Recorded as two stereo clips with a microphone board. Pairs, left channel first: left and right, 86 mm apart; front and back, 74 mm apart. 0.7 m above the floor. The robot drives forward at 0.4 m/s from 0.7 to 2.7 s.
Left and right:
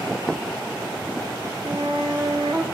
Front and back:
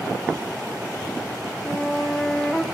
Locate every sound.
1.6 s a flute: 75° right, 1.4 m; by 2.6 s 95° right, 1.4 m